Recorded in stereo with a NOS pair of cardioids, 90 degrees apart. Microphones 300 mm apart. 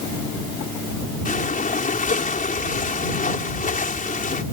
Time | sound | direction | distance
1.2 | breathing | 30° left | ?